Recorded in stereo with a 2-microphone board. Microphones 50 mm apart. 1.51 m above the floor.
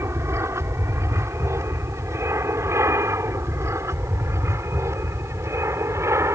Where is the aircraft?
70° right (ahead or behind); by 6.4 s 75° right (ahead or behind).